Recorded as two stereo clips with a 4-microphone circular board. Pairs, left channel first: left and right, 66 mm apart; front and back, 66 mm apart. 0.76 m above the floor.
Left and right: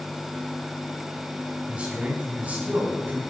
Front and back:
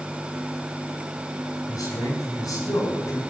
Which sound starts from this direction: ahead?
A man speaking, at 1.7 s.